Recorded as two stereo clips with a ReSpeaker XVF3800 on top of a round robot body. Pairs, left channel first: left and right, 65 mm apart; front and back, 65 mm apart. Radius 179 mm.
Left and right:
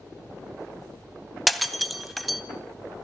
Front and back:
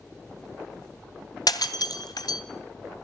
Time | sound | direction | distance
1.5 | breaking glass | straight ahead | 2.5 m